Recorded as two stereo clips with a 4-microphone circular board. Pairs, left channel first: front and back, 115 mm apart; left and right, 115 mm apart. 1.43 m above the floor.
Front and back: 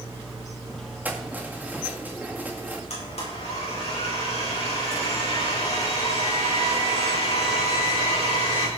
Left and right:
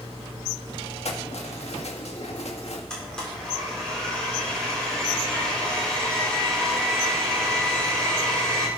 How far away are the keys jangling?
About 1.9 m.